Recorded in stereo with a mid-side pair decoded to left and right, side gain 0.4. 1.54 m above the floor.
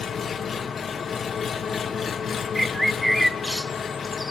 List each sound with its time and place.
0.0 s an engine running: 50° left, 1.9 m
2.5 s a bird: 5° right, 0.8 m